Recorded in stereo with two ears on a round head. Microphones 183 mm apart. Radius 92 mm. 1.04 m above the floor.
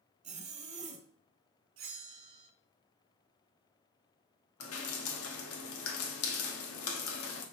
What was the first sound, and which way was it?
A zipper, 35° right (ahead or behind).